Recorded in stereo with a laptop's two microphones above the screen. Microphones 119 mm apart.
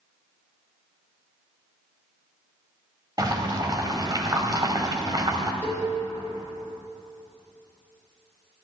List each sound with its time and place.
3.2 s boiling: 35° right (ahead or behind), 1.1 m
5.6 s a cowbell: 20° left (ahead or behind), 3 m